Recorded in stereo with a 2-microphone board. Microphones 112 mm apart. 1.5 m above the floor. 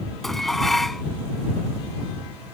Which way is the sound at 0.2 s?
Centre (ahead or behind).